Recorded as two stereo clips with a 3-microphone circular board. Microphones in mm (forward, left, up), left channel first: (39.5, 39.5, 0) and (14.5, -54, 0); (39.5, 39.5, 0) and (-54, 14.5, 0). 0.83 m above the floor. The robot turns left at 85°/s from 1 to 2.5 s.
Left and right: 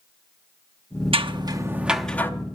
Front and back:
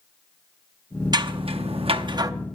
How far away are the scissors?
About 0.7 m.